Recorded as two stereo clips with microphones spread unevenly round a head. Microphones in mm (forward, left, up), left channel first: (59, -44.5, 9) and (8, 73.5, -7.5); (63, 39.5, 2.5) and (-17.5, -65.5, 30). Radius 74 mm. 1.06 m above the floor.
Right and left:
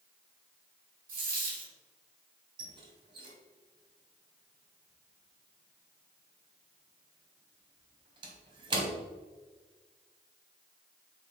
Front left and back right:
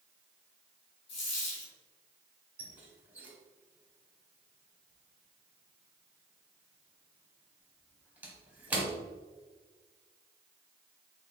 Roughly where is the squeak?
Behind.